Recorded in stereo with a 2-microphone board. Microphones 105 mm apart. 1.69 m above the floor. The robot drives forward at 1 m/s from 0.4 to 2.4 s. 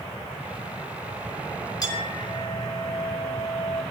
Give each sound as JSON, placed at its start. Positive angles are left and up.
{"t": 1.8, "sound": "a clink", "side_deg": 40, "distance_m": 4.0}